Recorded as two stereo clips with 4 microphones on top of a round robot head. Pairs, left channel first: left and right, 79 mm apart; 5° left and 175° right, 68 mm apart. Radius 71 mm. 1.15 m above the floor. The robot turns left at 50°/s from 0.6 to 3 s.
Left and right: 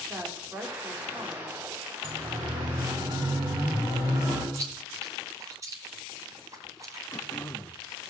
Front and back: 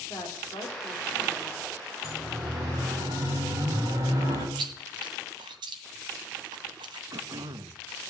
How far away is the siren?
About 9 m.